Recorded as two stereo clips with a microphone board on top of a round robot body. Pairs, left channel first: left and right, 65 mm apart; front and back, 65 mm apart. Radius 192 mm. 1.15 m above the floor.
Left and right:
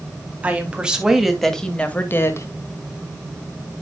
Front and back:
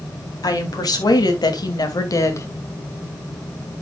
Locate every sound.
0.4 s a woman speaking: 20° right, 3.5 m; by 2.5 s 50° left, 2 m